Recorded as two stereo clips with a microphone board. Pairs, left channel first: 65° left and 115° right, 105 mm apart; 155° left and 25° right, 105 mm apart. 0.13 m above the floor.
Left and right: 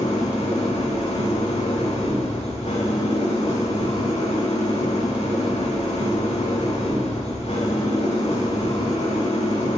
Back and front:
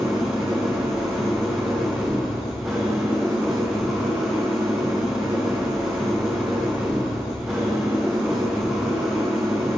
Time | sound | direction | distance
0.0 | an engine running | 60° left | 7.5 m